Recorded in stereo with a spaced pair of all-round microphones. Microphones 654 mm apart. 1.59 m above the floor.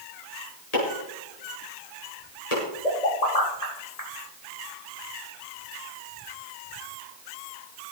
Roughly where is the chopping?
Left.